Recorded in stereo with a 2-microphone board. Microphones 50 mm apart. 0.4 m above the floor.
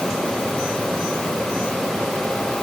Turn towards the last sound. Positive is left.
No sound to turn to.